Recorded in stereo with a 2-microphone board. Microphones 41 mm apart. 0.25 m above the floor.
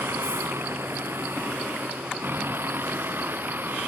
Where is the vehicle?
75° right (ahead or behind); by 3.9 s 55° right (ahead or behind).